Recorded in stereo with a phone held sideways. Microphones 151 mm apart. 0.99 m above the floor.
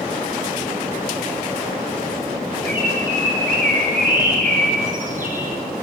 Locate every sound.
2.7 s a bird: 60° right (ahead or behind), 2.5 m